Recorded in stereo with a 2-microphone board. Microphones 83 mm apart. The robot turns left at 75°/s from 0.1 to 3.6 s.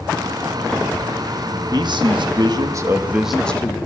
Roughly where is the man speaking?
Ahead right.